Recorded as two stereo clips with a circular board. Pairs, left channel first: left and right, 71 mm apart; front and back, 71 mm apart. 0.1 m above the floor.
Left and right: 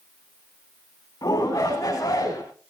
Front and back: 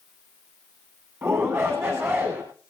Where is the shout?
130° left, 7.5 m.